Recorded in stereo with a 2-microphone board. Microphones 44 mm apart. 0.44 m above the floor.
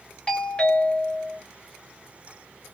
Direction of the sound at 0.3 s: 20° left (ahead or behind).